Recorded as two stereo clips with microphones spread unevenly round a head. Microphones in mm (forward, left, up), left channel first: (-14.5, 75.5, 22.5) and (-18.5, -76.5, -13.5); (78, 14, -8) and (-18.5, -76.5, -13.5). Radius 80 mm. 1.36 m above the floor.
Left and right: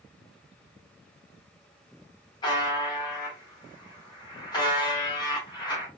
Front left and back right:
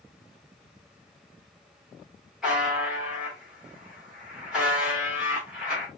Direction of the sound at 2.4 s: 135° left.